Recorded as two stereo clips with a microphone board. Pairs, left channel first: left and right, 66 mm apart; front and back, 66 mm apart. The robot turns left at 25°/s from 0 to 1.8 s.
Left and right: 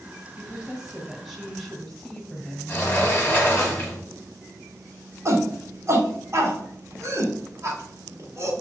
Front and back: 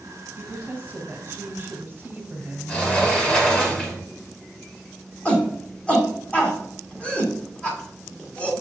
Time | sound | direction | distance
0.4 | a woman speaking | 155° right | 1.2 m
2.7 | a sliding door | 50° left | 1.4 m
5.2 | a shout | 65° right | 1.4 m